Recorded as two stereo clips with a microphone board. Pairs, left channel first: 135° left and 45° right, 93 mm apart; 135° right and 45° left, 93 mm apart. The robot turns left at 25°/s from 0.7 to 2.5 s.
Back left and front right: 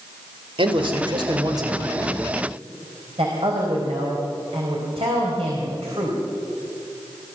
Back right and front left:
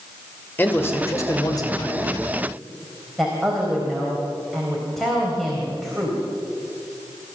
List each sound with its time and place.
0.6 s a man speaking: 70° right, 2.5 m; by 2.2 s 105° right, 2.5 m
3.2 s a woman speaking: 45° right, 4 m